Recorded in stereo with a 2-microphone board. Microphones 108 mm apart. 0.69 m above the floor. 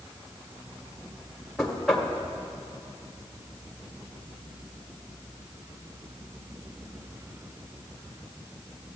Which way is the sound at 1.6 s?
Centre (ahead or behind).